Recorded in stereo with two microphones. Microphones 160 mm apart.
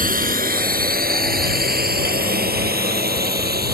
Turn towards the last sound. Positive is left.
turn(degrees=-75)  # may be behind; listen again after turning